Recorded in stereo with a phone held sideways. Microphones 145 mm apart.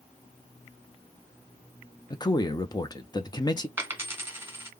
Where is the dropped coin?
15° right (ahead or behind), 1.3 m.